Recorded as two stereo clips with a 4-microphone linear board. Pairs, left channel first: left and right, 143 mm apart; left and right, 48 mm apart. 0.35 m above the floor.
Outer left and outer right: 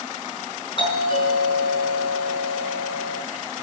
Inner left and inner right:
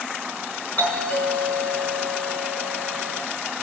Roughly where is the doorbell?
Left.